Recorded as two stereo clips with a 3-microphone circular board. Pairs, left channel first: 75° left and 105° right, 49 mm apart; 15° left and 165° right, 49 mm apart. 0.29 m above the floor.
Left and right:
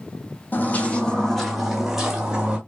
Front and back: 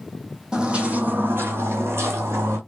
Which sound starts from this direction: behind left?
Footsteps, at 0.5 s.